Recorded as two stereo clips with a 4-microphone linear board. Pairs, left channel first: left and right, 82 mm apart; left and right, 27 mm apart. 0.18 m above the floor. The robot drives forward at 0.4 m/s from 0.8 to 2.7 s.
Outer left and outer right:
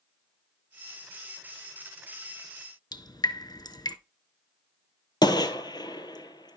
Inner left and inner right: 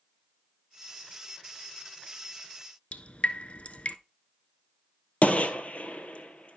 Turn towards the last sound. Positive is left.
turn(degrees=60)  # may be behind; listen again after turning